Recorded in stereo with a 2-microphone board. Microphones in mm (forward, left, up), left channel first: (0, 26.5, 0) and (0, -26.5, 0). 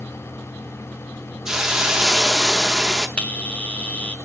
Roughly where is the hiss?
Centre.